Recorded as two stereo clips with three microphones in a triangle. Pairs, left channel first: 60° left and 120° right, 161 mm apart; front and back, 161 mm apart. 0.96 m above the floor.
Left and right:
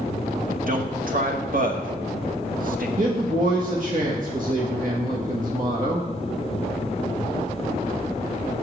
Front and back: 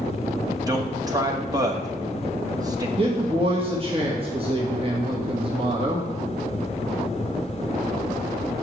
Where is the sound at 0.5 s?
115° right, 1.4 m.